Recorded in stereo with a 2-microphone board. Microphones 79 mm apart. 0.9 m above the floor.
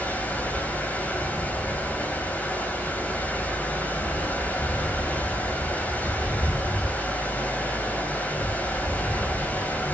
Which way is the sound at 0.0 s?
20° left (ahead or behind).